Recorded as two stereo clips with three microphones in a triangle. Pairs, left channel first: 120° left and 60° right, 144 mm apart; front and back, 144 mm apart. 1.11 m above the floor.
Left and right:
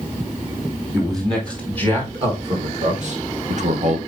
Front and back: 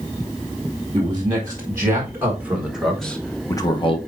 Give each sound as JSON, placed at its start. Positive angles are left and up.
{"t": 0.9, "sound": "a man speaking", "azimuth_deg": -120, "distance_m": 2.5}